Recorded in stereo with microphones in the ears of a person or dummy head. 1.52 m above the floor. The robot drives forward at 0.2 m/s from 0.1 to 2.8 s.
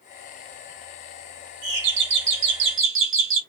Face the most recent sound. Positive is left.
turn(degrees=-65)  # may be behind; listen again after turning